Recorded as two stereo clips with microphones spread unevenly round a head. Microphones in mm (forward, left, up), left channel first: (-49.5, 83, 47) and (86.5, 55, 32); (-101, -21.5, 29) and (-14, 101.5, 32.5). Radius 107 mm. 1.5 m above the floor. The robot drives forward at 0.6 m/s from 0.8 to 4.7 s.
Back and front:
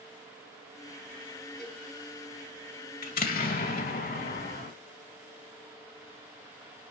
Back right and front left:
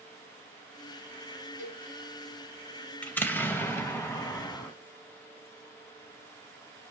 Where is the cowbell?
110° right, 5 m.